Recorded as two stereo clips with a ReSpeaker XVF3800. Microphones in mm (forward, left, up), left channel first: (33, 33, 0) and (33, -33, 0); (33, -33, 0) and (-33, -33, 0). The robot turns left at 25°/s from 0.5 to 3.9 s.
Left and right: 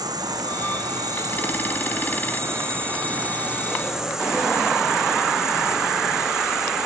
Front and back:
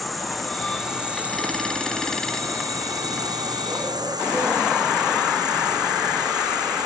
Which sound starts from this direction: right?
An insect, at 0.0 s.